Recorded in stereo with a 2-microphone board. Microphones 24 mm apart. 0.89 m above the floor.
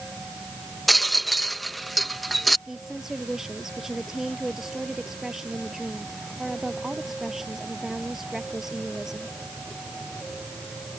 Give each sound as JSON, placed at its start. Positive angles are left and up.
{"t": 0.9, "sound": "a rattle", "side_deg": 0}
{"t": 2.7, "sound": "a woman speaking", "side_deg": -15}